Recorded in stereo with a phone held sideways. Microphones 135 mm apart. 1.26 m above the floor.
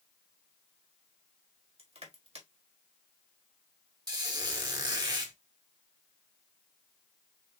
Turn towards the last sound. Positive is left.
turn(degrees=-35)  # may be behind; listen again after turning